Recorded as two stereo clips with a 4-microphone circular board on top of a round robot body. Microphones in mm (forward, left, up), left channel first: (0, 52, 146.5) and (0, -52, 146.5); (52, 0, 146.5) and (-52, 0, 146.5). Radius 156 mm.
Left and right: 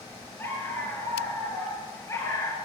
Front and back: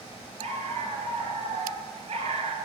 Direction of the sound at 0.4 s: 160° left.